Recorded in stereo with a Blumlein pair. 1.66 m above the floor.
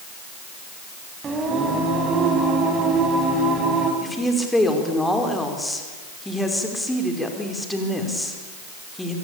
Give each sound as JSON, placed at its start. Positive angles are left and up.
{"t": 1.2, "sound": "singing", "azimuth_deg": -20, "distance_m": 5.0}
{"t": 4.0, "sound": "a woman speaking", "azimuth_deg": 5, "distance_m": 5.0}